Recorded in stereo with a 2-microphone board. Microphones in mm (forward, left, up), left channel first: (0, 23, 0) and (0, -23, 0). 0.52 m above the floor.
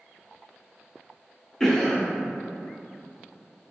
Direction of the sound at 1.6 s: 10° left (ahead or behind).